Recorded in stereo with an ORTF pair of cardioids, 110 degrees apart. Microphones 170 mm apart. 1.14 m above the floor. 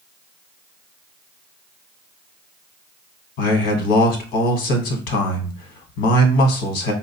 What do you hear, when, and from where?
3.4 s a man speaking: 70° left, 1.1 m